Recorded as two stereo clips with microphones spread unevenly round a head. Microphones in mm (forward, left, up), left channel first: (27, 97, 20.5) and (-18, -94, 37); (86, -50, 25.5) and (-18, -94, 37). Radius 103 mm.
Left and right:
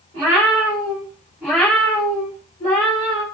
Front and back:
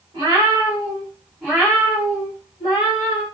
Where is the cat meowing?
135° right, 1.2 m; by 3.2 s 45° left, 1.2 m.